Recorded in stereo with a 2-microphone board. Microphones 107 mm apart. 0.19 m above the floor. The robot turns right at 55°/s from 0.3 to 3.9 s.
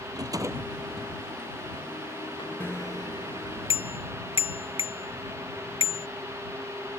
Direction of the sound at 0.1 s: 40° right.